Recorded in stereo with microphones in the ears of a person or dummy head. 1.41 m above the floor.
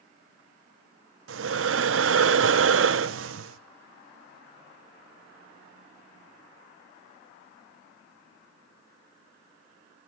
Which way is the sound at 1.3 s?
85° right.